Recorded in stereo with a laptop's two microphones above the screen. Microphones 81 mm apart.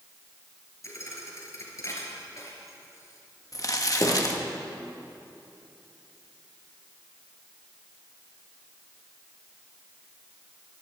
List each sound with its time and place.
0.8 s a thud: 40° left (ahead or behind), 3.5 m
3.5 s crumpling: 45° left (ahead or behind), 1.1 m